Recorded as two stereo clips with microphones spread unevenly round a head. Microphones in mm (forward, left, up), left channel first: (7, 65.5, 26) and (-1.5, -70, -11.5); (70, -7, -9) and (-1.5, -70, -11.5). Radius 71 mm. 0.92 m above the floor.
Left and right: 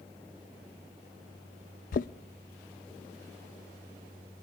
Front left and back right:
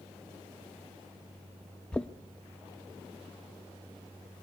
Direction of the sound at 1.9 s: 125° left.